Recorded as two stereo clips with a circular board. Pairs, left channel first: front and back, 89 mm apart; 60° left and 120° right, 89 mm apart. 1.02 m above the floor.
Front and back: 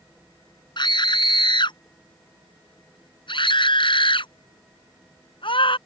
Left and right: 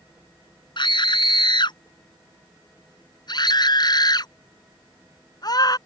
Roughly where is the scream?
Ahead left.